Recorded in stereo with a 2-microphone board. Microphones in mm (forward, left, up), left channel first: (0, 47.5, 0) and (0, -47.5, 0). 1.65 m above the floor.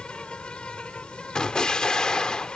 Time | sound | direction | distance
0.0 | an insect | 10° left (ahead or behind) | ?
1.4 | an explosion | 10° left (ahead or behind) | ?